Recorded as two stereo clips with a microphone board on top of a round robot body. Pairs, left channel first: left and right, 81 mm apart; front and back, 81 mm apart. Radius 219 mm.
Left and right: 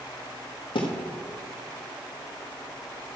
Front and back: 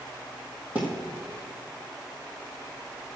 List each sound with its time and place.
0.8 s a thud: 105° left, 1.7 m